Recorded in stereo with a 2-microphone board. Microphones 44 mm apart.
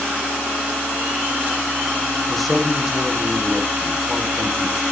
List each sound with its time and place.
2.3 s a man speaking: centre (ahead or behind), 5 m